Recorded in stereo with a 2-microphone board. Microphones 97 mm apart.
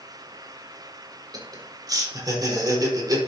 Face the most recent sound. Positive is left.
turn(degrees=-45)  # may be behind; listen again after turning